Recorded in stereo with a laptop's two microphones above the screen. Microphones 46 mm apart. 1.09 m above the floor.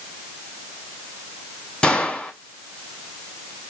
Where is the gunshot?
25° left (ahead or behind), 1.2 m.